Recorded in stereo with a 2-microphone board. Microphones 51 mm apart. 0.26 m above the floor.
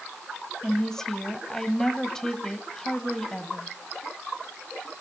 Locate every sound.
0.6 s a woman speaking: 10° left (ahead or behind), 1.4 m